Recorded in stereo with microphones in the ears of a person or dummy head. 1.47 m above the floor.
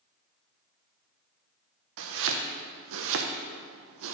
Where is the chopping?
70° right (ahead or behind), 0.8 m.